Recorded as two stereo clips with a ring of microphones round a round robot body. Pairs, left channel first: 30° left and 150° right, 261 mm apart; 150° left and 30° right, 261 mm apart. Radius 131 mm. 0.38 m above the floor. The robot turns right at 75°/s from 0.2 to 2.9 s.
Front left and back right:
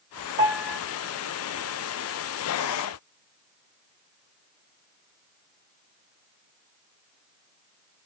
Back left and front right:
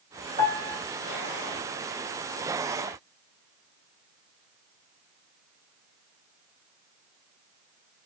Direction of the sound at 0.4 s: 75° right.